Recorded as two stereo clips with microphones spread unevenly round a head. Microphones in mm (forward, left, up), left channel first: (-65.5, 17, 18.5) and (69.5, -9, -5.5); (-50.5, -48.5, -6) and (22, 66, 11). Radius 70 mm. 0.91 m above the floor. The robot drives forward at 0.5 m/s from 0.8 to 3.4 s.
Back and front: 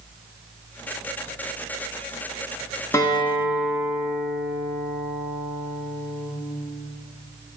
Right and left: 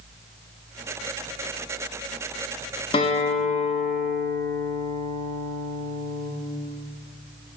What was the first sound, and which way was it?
A guitar, 115° right.